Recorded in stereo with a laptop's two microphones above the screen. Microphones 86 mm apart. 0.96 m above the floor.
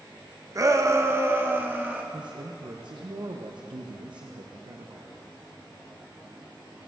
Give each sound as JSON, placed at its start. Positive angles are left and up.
{"t": 0.6, "sound": "a shout", "side_deg": -40, "distance_m": 0.7}
{"t": 2.1, "sound": "a man speaking", "side_deg": -65, "distance_m": 0.6}